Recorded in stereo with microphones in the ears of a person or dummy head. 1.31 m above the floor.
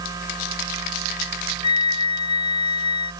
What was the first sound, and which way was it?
A machine running, 20° right (ahead or behind).